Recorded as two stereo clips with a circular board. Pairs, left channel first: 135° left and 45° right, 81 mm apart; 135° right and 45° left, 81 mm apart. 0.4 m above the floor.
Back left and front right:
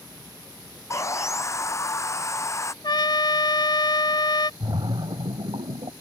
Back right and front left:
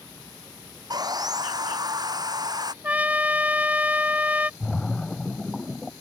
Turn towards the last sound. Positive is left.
turn(degrees=-50)